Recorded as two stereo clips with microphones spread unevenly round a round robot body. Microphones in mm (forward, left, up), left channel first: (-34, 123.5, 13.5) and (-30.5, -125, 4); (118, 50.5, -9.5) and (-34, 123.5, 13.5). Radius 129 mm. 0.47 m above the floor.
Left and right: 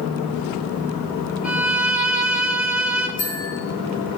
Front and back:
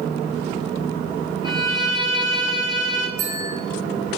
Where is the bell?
150° left, 4.5 m.